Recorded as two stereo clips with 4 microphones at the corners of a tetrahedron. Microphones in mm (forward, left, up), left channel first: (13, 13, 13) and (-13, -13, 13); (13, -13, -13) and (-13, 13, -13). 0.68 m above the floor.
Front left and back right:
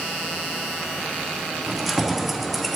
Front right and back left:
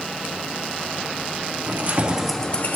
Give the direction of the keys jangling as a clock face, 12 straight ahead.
7 o'clock.